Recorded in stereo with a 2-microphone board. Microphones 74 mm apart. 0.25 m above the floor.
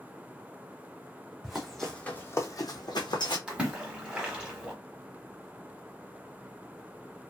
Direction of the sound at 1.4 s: 10° right (ahead or behind).